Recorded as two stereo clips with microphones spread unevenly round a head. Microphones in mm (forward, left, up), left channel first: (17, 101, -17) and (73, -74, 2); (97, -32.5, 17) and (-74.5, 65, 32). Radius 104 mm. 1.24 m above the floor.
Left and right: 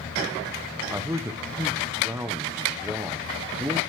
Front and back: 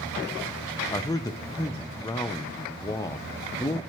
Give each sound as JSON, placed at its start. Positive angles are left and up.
{"t": 0.9, "sound": "a man speaking", "azimuth_deg": 0, "distance_m": 0.6}